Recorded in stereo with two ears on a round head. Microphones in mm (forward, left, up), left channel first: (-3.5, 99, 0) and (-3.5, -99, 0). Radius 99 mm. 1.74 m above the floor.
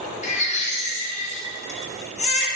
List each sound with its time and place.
0.2 s a baby crying: 30° left (ahead or behind), 1.2 m